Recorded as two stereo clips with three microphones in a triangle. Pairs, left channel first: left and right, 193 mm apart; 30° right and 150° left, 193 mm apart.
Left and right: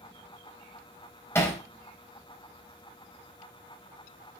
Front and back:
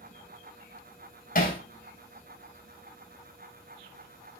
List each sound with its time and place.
1.4 s hammering: 15° left, 4 m